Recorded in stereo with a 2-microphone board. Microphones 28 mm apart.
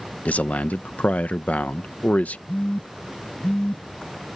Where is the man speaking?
60° left (ahead or behind).